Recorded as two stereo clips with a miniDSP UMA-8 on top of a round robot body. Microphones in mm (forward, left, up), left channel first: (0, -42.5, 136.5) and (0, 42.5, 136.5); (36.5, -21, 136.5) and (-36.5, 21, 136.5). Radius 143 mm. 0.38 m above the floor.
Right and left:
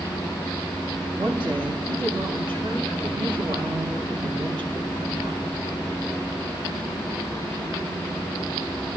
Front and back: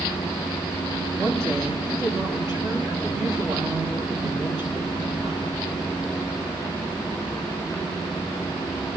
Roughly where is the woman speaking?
Left.